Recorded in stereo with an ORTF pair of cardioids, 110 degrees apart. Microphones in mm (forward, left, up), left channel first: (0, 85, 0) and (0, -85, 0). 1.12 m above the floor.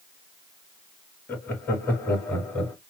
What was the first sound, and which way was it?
Laughter, 10° left.